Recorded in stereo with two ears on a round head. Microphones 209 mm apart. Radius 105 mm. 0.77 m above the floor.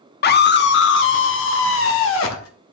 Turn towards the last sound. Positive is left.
turn(degrees=60)  # may be behind; listen again after turning